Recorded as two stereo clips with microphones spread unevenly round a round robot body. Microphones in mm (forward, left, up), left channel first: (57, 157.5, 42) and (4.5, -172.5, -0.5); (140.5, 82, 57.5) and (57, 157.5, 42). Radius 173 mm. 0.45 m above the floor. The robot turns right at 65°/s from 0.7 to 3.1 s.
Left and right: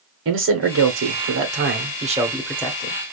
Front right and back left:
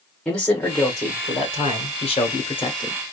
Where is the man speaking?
130° right, 1.2 m; by 3.0 s 20° left, 1.2 m.